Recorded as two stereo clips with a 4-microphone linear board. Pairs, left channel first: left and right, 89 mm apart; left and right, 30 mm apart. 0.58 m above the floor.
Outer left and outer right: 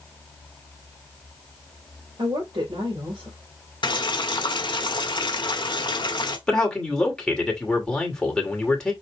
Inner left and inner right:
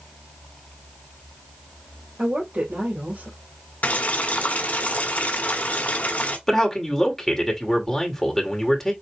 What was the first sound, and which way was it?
A woman speaking, 70° right (ahead or behind).